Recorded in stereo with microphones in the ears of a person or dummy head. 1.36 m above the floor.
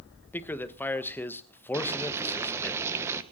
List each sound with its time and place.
0.3 s a man speaking: 10° left (ahead or behind), 1.1 m
1.7 s boiling: 15° right (ahead or behind), 1.3 m